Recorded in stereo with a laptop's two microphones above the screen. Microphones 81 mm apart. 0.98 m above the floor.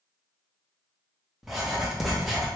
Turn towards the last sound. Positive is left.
turn(degrees=-5)  # may be behind; listen again after turning